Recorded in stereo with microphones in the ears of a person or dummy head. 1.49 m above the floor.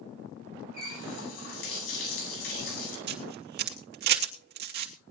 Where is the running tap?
85° left, 9 m.